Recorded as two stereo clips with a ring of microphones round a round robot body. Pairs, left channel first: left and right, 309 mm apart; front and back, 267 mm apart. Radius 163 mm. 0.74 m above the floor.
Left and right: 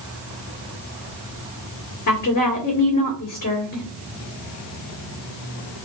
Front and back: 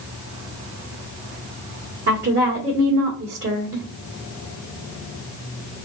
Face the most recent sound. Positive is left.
turn(degrees=145)